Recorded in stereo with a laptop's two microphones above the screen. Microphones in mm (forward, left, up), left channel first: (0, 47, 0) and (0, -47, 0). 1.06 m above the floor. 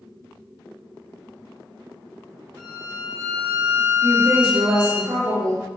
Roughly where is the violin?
Right.